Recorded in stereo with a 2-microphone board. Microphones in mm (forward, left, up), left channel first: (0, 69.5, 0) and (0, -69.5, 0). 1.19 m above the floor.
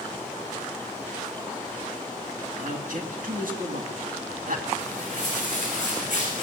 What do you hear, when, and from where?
2.6 s a man speaking: 75° right (ahead or behind), 2 m
4.8 s footsteps: 65° right (ahead or behind), 5.5 m; by 6.4 s 70° right (ahead or behind), 4.5 m